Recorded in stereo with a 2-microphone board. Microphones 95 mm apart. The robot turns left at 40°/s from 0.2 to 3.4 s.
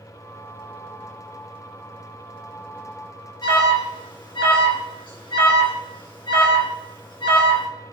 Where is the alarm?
55° left (ahead or behind), 3 m.